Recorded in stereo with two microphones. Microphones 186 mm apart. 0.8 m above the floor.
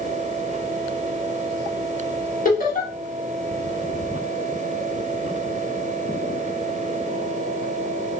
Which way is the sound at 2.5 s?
50° left (ahead or behind).